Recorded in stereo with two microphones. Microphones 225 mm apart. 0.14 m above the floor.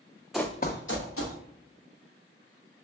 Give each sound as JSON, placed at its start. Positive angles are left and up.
{"t": 0.3, "sound": "running footsteps", "side_deg": 0, "distance_m": 0.5}